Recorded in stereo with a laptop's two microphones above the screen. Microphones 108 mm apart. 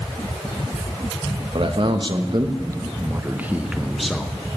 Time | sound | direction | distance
1.6 | a man speaking | 55° right (ahead or behind) | 1.4 m